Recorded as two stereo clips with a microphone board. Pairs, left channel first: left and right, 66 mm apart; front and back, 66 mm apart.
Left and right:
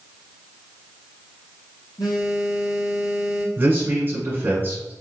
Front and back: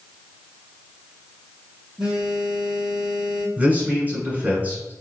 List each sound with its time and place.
2.0 s a phone buzzing: 100° left, 1.2 m
3.6 s a man speaking: 135° right, 1.4 m